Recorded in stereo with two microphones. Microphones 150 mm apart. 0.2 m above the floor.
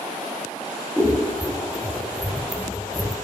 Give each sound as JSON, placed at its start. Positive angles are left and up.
{"t": 1.0, "sound": "scissors", "side_deg": 0, "distance_m": 0.5}